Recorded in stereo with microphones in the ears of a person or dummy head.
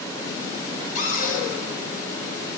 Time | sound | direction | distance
0.9 | a cupboard door | 50° left (ahead or behind) | 2.5 m